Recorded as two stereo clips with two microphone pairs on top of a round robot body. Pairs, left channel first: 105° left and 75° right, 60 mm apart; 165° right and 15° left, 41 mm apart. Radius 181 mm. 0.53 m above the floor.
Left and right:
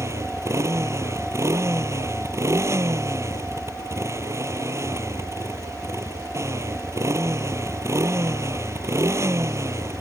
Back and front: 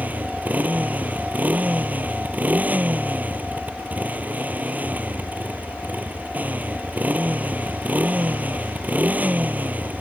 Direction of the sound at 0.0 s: 35° right.